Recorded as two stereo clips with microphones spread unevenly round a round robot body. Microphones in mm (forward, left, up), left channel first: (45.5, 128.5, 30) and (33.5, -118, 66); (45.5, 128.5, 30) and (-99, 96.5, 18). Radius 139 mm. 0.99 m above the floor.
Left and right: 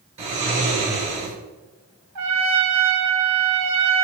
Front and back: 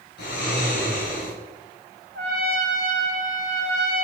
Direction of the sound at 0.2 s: 30° right.